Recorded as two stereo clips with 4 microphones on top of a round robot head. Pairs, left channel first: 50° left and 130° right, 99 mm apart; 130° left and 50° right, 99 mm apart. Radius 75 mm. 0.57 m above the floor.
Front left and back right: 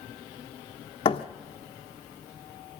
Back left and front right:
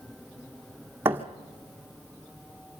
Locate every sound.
1.1 s a thud: 20° left, 1.4 m